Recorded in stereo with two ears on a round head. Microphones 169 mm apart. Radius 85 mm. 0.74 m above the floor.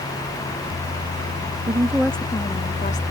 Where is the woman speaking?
30° right (ahead or behind); by 3.0 s 40° left (ahead or behind).